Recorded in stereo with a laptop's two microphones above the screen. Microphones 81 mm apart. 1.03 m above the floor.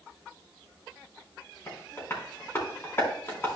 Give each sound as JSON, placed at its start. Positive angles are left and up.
{"t": 1.7, "sound": "tapping", "side_deg": 25, "distance_m": 3.5}